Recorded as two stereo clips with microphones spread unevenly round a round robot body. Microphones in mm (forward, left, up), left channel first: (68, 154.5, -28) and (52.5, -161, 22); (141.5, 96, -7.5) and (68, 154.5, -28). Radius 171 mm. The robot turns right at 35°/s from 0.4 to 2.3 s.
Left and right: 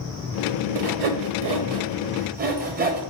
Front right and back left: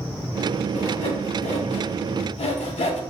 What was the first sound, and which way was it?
Sawing, 80° right.